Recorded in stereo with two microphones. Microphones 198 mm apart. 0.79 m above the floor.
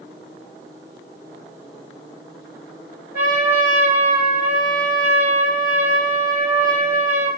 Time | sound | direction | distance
3.1 | a trumpet | 45° left (ahead or behind) | 1.7 m